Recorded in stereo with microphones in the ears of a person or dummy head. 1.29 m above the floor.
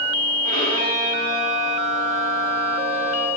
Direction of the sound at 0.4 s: 50° right (ahead or behind).